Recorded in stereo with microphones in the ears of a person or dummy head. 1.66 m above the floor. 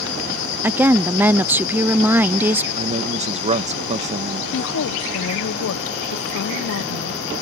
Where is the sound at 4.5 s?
75° left (ahead or behind).